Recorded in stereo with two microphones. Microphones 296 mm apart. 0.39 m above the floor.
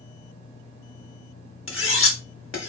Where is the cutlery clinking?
45° left (ahead or behind), 0.9 m.